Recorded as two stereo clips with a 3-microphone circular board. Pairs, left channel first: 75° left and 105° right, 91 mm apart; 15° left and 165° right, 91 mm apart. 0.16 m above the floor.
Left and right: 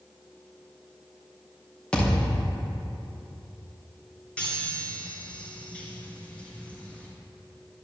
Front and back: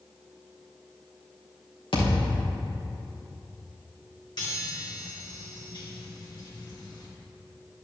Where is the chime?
Straight ahead, 2.5 m.